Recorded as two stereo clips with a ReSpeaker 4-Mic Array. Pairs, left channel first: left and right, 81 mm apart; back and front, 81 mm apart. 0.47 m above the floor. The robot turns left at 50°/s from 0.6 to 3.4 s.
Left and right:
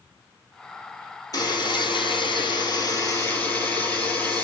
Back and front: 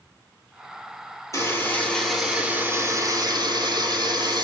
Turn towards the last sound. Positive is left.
turn(degrees=30)